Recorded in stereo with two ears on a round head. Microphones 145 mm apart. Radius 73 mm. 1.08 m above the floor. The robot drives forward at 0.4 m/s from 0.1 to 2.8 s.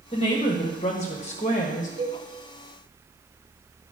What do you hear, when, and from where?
0.1 s a woman speaking: 30° left (ahead or behind), 1.2 m; by 1.9 s 45° left (ahead or behind), 0.9 m
2.0 s a cowbell: 30° right (ahead or behind), 1.2 m